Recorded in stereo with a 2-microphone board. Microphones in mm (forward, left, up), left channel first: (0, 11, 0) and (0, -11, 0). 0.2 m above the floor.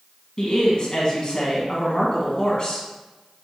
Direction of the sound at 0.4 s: 35° left (ahead or behind).